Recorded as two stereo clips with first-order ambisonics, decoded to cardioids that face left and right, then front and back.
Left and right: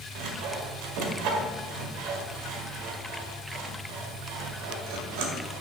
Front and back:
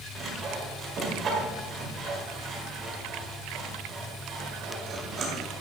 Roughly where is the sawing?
Behind right.